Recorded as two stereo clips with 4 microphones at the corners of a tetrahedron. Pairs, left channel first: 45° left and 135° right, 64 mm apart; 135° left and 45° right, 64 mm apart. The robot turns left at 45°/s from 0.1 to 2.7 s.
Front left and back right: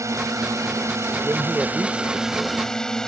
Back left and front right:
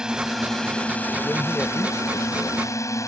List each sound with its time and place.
0.0 s a drone: 120° right; by 3.1 s 125° left
1.2 s a man speaking: 165° right; by 2.6 s 130° left